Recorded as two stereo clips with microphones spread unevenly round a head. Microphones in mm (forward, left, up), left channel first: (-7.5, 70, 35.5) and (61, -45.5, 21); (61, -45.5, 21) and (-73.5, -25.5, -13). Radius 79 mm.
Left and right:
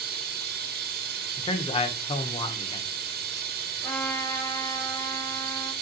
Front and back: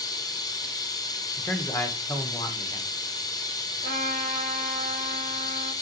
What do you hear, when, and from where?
0.0 s running water: 70° right, 1.1 m
1.4 s a man speaking: 70° left, 1.3 m
3.8 s a trumpet: 160° right, 3 m